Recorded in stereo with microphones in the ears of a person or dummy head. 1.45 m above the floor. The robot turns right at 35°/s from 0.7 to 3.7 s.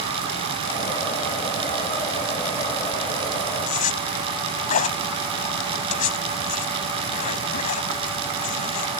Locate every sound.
3.7 s a zipper: 45° left (ahead or behind)